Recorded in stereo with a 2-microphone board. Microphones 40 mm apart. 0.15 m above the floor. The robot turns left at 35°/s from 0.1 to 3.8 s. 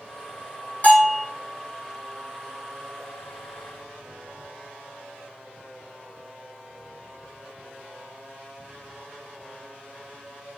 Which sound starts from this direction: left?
A bell, at 0.8 s.